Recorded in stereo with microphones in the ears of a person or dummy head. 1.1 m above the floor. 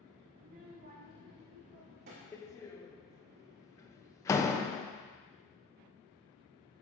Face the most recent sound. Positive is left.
turn(degrees=15)  # may be behind; listen again after turning